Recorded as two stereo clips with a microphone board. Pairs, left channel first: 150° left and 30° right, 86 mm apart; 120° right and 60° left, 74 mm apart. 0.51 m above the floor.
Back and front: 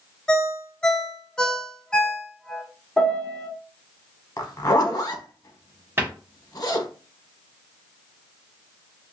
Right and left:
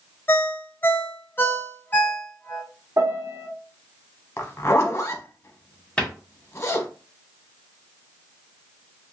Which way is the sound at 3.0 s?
70° left.